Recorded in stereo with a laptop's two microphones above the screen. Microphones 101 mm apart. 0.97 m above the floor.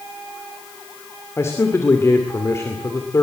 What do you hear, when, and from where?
1.4 s a man speaking: 25° left (ahead or behind), 2.5 m